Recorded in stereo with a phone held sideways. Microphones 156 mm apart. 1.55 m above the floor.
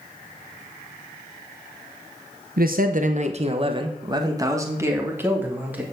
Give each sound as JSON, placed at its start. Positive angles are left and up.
{"t": 2.6, "sound": "a man speaking", "side_deg": -65, "distance_m": 0.9}